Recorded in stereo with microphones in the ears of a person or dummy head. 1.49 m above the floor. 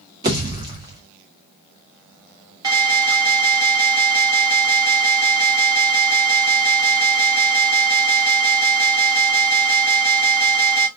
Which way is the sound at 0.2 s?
20° right (ahead or behind).